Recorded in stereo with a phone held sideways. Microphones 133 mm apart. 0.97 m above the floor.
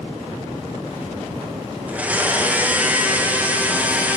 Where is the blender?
10° right (ahead or behind), 1.0 m.